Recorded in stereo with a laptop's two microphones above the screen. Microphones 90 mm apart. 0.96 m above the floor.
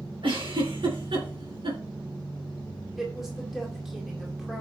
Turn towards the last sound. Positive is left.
turn(degrees=-5)  # may be behind; listen again after turning